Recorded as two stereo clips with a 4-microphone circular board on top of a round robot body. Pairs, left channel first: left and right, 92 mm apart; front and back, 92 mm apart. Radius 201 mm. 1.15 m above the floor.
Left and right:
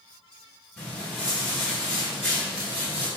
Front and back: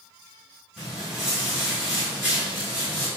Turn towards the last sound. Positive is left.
turn(degrees=-100)